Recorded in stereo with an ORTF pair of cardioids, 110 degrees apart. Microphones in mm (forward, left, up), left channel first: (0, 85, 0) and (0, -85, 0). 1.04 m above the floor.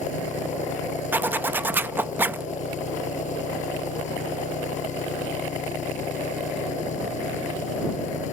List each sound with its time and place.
0.0 s an engine running: 50° left
1.1 s a zipper: 15° right